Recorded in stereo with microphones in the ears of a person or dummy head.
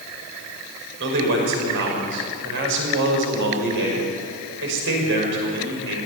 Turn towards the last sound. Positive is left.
turn(degrees=-65)  # may be behind; listen again after turning